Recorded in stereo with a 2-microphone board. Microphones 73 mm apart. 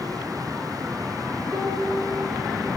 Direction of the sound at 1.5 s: 25° right (ahead or behind).